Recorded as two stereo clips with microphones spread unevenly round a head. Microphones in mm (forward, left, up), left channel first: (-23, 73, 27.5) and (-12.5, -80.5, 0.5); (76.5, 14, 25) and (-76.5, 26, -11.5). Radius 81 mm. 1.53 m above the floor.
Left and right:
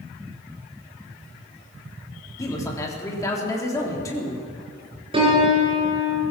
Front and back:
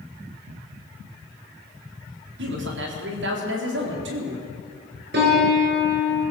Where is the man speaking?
165° left, 4 m.